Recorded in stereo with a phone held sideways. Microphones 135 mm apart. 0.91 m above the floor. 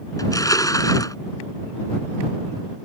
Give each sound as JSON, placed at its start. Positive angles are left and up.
{"t": 0.2, "sound": "crushing", "side_deg": 25}